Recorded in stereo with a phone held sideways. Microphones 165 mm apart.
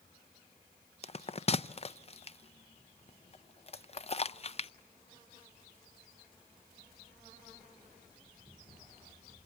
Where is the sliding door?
I don't hear a sliding door.